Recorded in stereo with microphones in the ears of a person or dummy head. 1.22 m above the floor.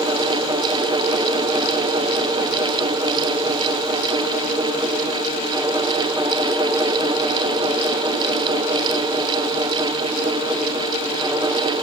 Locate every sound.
Only background noise.